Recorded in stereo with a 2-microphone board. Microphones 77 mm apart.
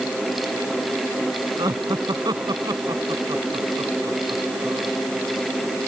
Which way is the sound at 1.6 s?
70° right (ahead or behind).